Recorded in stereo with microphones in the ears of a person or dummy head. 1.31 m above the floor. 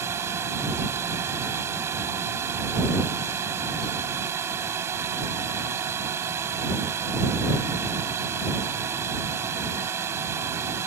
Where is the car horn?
No car horn in this recording.